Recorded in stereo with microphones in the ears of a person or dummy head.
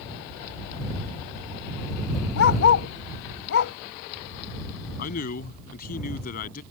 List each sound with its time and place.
2.4 s a dog barking: 60° left (ahead or behind)
5.0 s a man speaking: 50° left (ahead or behind)